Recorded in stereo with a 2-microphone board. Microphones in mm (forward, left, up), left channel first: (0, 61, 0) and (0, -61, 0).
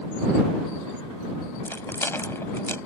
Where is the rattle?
20° left (ahead or behind).